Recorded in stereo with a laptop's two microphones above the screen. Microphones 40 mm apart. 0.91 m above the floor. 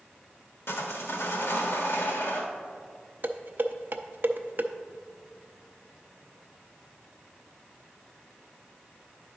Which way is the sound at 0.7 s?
80° left.